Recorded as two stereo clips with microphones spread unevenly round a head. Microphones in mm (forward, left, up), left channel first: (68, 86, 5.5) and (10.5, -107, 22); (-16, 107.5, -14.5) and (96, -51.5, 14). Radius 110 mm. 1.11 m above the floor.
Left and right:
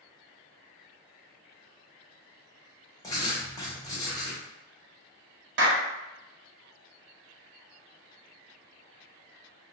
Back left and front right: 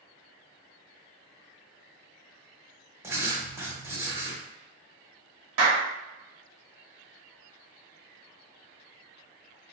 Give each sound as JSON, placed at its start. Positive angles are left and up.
{"t": 3.0, "sound": "writing", "azimuth_deg": 5, "distance_m": 0.9}
{"t": 5.6, "sound": "a clap", "azimuth_deg": -80, "distance_m": 0.8}